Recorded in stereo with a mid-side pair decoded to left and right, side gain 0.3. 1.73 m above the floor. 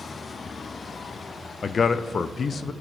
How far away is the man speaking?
About 0.5 m.